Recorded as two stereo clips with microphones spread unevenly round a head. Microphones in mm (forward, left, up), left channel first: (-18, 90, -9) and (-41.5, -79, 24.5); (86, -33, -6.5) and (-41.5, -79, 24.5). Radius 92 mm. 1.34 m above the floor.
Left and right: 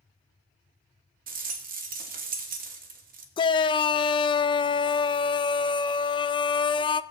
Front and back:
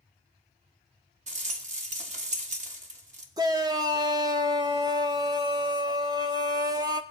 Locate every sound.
1.3 s a rattle: 130° right, 1.4 m
3.4 s a shout: 130° left, 0.5 m